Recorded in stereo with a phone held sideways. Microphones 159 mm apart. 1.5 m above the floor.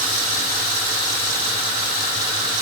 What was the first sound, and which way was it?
Only background noise.